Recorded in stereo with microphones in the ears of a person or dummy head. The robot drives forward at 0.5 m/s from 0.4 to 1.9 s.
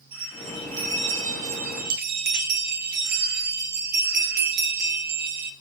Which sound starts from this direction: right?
A bell, at 0.1 s.